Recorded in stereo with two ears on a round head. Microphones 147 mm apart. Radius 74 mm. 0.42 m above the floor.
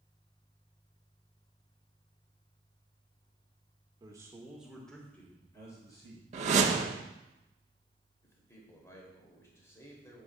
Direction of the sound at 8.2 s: 15° left (ahead or behind).